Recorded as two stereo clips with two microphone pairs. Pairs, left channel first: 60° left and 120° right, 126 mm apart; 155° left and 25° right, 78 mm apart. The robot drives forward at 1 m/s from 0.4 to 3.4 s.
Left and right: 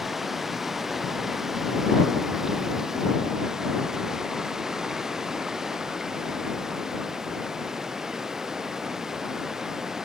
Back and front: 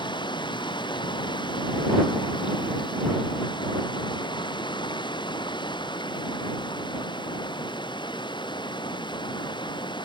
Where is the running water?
150° left; by 10.1 s 155° left.